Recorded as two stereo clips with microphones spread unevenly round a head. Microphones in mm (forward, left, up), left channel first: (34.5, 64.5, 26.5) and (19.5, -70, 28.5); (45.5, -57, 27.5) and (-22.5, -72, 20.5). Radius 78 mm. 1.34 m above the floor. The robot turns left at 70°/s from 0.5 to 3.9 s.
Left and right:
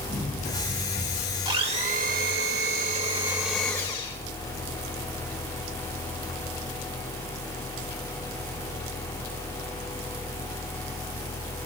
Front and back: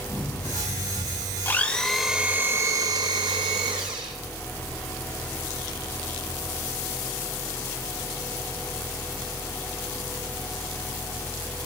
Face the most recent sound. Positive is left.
turn(degrees=150)